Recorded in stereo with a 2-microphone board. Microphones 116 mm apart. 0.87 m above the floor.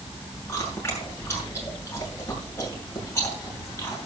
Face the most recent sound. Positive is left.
turn(degrees=20)  # may be behind; listen again after turning